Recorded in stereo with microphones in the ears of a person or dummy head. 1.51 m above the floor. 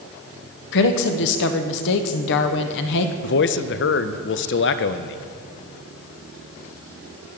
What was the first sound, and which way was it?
A woman speaking, 65° left (ahead or behind).